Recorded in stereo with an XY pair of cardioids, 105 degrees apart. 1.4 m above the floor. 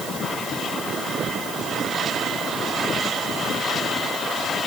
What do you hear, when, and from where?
Only background noise.